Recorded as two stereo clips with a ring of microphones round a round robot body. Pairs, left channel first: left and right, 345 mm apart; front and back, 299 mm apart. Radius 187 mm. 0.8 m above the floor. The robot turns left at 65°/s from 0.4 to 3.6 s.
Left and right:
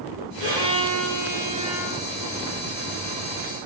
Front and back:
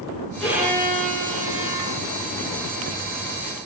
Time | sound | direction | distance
0.4 | a violin | 85° right | 7.5 m